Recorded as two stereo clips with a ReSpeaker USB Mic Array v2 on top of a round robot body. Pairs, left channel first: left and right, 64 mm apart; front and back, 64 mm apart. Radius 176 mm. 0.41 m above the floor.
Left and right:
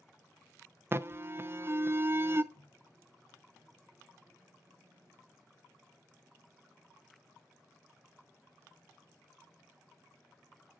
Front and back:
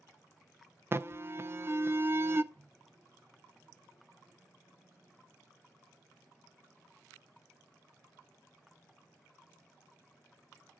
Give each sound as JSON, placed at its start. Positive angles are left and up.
{"t": 0.9, "sound": "an alarm", "azimuth_deg": -135, "distance_m": 0.6}
{"t": 2.5, "sound": "a microwave", "azimuth_deg": -130, "distance_m": 3.0}